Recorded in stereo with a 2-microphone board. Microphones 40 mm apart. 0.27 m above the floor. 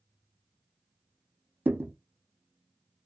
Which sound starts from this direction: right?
A thud, at 1.6 s.